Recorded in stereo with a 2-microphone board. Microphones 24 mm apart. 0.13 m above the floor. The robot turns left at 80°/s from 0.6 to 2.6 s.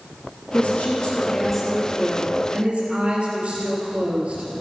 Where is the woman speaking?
85° left, 3 m; by 4.5 s 75° right, 3 m.